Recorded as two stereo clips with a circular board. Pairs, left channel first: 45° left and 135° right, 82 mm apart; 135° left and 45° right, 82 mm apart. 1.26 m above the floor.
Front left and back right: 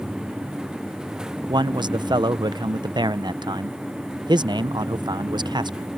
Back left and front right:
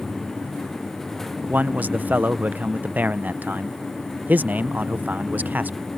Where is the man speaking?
115° right.